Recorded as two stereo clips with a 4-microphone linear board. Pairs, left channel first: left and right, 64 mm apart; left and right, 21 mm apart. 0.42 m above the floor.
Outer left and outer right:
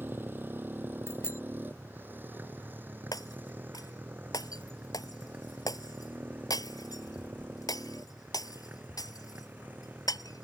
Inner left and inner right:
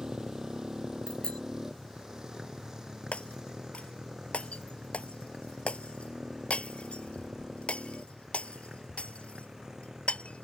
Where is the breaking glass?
75° left (ahead or behind).